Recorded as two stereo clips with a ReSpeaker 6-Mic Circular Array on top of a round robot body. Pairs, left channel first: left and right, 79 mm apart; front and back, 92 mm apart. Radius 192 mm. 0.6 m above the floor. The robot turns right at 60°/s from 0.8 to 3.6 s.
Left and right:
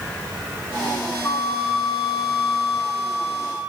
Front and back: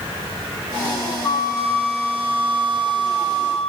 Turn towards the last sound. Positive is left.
turn(degrees=-170)